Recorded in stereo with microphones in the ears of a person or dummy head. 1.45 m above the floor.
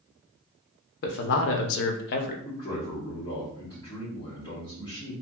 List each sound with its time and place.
1.0 s a man speaking: 60° left (ahead or behind), 0.7 m; by 2.4 s 50° left (ahead or behind), 0.5 m
2.5 s a man speaking: 30° left (ahead or behind), 1.0 m